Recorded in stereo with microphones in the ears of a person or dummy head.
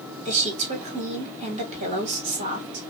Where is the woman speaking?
35° right (ahead or behind), 1.5 m.